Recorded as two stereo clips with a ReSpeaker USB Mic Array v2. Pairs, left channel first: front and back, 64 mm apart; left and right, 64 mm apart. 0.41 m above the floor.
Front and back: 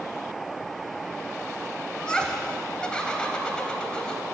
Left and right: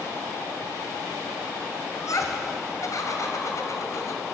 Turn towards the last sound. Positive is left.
turn(degrees=75)